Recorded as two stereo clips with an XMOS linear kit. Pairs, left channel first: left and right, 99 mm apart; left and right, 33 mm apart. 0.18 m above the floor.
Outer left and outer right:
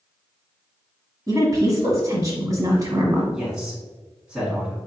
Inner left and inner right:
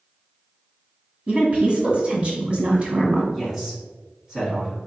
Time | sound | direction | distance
1.3 | a woman speaking | 30° right (ahead or behind) | 1.4 m
3.3 | a man speaking | 10° right (ahead or behind) | 1.8 m